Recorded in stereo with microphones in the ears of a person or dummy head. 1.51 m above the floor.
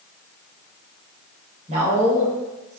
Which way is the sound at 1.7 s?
40° right (ahead or behind).